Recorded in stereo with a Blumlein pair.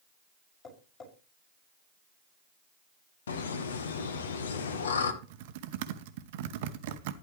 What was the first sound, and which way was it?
Tapping, 30° left.